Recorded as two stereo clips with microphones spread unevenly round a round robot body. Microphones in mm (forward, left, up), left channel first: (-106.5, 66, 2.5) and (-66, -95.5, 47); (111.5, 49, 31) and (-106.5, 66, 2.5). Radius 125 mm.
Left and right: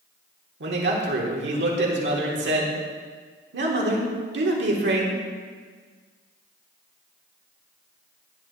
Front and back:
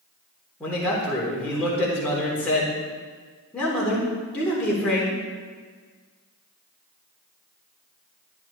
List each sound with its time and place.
0.6 s a man speaking: 90° right, 3.5 m